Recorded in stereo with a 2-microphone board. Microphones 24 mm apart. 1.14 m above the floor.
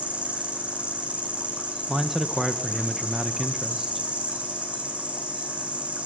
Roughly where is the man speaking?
Centre.